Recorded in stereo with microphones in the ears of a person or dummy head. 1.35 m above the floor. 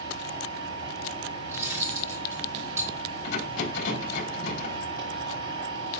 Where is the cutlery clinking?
10° right (ahead or behind), 1.7 m.